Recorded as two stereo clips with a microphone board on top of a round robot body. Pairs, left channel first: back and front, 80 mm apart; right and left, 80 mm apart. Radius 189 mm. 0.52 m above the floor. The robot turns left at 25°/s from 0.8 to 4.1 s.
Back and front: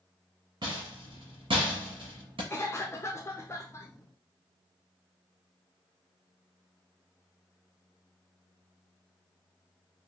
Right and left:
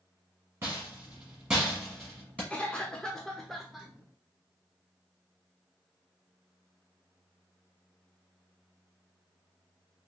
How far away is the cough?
About 0.8 m.